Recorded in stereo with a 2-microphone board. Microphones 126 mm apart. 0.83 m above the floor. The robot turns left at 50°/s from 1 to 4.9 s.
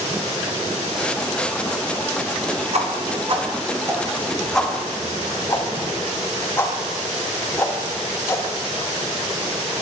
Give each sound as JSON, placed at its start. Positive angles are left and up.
{"t": 2.7, "sound": "a whoosh", "side_deg": -60, "distance_m": 1.1}